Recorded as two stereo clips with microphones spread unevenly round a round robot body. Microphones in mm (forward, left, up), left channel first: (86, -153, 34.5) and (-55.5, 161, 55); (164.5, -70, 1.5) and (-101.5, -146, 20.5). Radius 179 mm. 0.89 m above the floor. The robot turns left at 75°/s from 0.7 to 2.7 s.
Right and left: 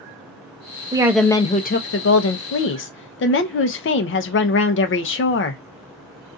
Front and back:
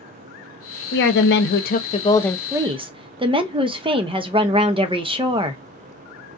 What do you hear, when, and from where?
0.9 s a woman speaking: 40° left, 0.7 m; by 5.6 s 95° right, 0.7 m